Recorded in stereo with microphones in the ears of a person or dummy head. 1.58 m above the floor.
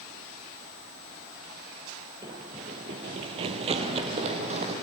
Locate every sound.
2.2 s running footsteps: 10° right (ahead or behind), 1.6 m; by 4.7 s 35° right (ahead or behind), 3 m